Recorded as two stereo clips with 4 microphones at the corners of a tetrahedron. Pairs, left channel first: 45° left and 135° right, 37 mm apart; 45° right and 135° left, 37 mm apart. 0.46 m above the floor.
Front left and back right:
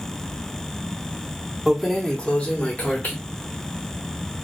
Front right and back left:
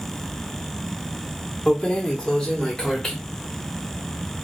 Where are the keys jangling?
55° right, 0.5 m; by 3.1 s 25° left, 1.0 m.